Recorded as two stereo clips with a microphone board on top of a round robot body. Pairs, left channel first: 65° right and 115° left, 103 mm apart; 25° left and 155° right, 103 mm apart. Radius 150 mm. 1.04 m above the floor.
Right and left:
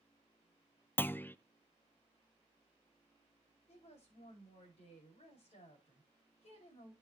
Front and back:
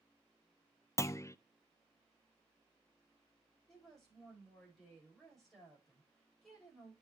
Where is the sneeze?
No sneeze in this recording.